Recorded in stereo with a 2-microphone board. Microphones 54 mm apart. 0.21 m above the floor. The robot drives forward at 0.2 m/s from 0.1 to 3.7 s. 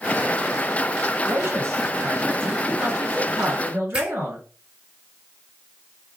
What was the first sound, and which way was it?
A man speaking, 50° right (ahead or behind).